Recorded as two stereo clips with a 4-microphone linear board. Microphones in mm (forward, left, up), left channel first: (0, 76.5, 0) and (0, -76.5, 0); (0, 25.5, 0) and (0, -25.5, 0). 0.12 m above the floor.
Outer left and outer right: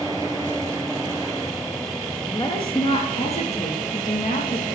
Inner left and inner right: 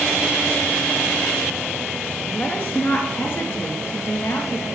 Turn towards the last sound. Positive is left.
turn(degrees=60)  # may be behind; listen again after turning